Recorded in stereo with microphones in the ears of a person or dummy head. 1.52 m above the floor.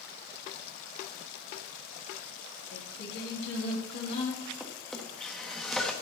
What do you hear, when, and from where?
2.7 s singing: 70° left (ahead or behind), 3 m
4.6 s a drawer: 5° right (ahead or behind), 1.4 m